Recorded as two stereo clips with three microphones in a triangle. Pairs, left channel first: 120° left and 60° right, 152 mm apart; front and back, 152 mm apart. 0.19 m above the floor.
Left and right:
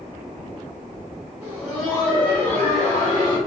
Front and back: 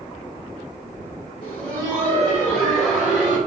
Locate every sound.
1.4 s laughter: 15° left, 1.3 m; by 3.4 s 110° left, 1.3 m